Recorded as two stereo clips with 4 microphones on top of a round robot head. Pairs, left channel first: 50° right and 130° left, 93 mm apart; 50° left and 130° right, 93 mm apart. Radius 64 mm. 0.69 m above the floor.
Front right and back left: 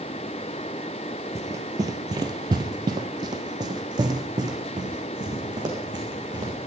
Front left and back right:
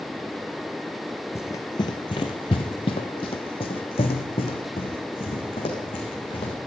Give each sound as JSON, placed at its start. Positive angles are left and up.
{"t": 1.4, "sound": "running footsteps", "azimuth_deg": 90, "distance_m": 0.7}